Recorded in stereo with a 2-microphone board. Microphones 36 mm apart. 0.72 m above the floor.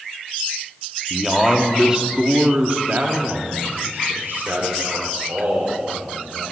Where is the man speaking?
Centre (ahead or behind), 1.1 m; by 6.5 s 75° right (ahead or behind), 2.5 m.